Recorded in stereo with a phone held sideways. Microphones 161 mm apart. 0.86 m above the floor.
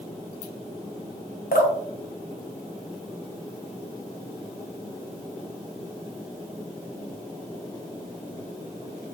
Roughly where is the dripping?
Left.